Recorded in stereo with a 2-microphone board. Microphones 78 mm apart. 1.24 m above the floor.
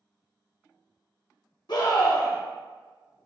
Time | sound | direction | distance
1.7 | a scream | 60° left (ahead or behind) | 0.9 m